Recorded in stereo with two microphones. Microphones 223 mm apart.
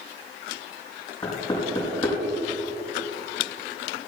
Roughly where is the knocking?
Left.